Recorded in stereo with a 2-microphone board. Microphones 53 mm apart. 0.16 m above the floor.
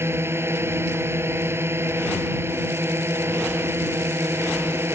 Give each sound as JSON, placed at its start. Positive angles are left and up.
{"t": 0.0, "sound": "a drone", "side_deg": -50}